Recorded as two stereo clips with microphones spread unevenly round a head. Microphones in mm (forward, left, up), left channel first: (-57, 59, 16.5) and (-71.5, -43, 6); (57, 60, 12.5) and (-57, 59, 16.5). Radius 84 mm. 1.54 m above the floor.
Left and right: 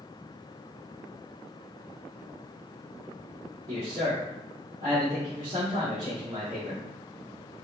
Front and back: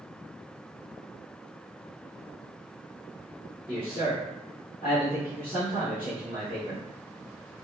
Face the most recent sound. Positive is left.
turn(degrees=-70)